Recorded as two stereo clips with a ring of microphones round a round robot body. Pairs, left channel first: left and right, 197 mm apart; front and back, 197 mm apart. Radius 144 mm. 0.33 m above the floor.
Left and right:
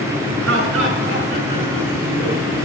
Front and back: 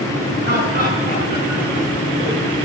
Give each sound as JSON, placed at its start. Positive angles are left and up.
{"t": 0.4, "sound": "laughter", "azimuth_deg": -125, "distance_m": 5.0}